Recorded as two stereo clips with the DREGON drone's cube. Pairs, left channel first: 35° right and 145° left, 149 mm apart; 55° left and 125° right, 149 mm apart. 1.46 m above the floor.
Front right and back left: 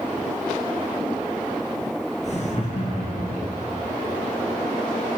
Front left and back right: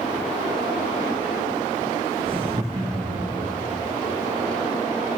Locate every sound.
2.2 s laughter: 75° right, 1.8 m; by 3.6 s 70° right, 3.5 m